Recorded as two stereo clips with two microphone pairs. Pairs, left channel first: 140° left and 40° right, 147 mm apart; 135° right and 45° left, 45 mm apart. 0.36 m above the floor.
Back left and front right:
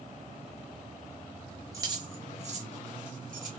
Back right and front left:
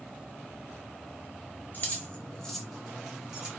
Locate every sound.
1.7 s keys jangling: 105° right, 0.8 m; by 3.5 s 25° right, 1.2 m